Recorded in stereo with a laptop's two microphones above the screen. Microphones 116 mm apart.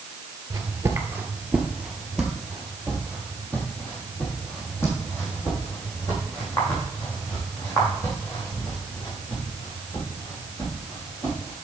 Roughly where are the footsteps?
Right.